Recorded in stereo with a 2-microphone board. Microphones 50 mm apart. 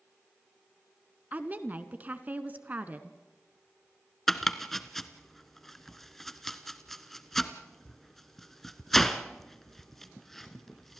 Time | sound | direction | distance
1.3 | a woman speaking | 35° right (ahead or behind) | 1.2 m
4.3 | chopping | 5° left (ahead or behind) | 1.0 m